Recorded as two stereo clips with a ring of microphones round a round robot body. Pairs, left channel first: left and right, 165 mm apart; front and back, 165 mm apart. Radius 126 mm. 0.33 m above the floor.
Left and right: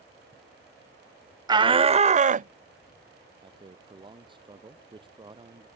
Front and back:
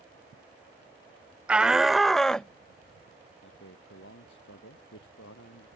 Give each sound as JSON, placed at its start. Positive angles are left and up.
{"t": 1.5, "sound": "a shout", "azimuth_deg": -105}
{"t": 3.4, "sound": "a man speaking", "azimuth_deg": -30}